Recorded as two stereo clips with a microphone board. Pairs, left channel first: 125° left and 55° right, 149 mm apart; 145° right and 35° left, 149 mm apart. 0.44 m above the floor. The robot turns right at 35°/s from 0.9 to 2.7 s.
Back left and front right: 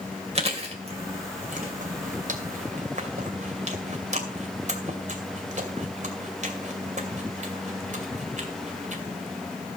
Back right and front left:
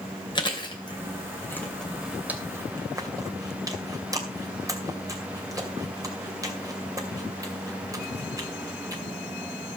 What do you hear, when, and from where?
0.3 s chewing: 95° right, 2.5 m; by 9.0 s 30° right, 2.5 m